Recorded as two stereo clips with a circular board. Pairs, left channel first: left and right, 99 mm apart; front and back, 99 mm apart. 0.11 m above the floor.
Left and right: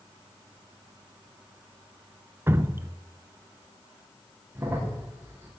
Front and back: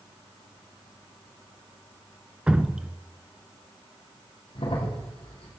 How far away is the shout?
No shout in this recording.